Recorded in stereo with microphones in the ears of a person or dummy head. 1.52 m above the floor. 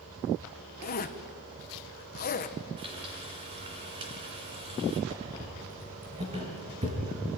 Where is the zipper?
40° left (ahead or behind), 1.0 m.